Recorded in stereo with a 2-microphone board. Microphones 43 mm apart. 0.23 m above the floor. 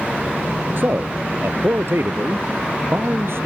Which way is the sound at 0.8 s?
55° right (ahead or behind).